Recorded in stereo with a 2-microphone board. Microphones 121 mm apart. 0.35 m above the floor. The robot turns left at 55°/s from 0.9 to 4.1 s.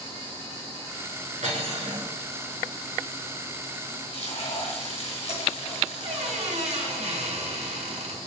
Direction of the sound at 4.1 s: 60° left (ahead or behind).